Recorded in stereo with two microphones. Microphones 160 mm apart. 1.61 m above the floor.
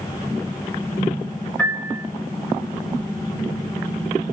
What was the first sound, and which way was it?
A piano, 10° left (ahead or behind).